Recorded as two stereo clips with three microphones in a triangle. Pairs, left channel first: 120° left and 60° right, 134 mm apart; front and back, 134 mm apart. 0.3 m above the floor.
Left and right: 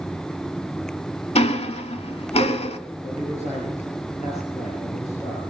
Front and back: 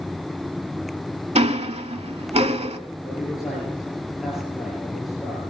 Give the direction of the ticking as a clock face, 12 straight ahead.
7 o'clock.